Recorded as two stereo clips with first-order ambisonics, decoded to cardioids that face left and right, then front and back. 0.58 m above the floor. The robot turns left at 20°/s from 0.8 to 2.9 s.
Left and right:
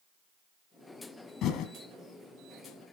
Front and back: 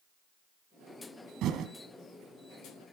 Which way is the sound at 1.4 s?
135° left.